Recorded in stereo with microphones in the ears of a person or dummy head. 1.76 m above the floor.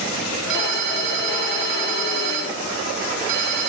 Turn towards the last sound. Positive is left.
turn(degrees=-70)  # may be behind; listen again after turning